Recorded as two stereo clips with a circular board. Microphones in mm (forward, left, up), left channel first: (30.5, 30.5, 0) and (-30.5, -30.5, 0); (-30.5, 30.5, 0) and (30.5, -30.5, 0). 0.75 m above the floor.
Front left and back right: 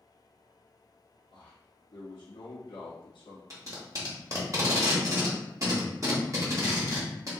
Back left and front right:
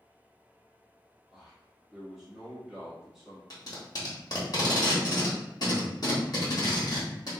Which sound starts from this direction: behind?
Tape being pulled, at 3.5 s.